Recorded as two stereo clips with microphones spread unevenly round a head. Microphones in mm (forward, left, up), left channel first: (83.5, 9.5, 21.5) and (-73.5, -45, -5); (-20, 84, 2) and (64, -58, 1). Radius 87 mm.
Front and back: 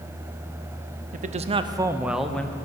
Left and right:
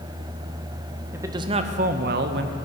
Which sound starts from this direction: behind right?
A man speaking, at 1.1 s.